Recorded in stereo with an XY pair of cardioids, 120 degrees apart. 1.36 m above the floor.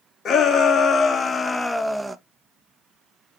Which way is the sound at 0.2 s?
50° left.